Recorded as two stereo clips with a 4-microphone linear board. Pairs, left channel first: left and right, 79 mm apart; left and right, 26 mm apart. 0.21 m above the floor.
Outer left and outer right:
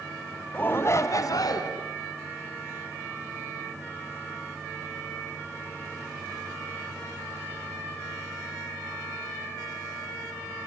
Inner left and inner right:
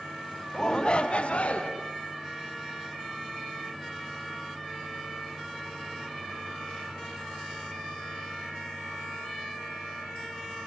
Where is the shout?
20° left (ahead or behind), 1.3 m; by 1.7 s 60° left (ahead or behind), 2.5 m.